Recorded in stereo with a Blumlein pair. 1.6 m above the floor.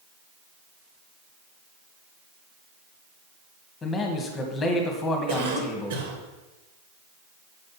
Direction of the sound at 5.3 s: 60° right.